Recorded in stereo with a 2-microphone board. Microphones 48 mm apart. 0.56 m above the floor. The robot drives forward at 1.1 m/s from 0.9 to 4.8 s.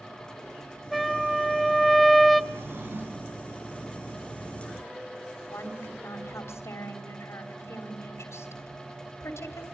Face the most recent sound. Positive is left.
turn(degrees=70)  # may be behind; listen again after turning